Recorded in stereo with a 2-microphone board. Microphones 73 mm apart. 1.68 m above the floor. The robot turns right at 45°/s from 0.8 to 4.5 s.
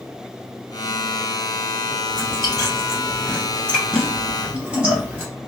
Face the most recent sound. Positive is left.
turn(degrees=-20)  # may be behind; listen again after turning